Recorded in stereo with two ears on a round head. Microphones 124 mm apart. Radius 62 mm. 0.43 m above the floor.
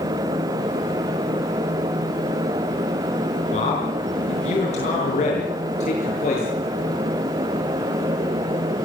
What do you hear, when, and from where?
3.5 s a man speaking: 55° left (ahead or behind), 6 m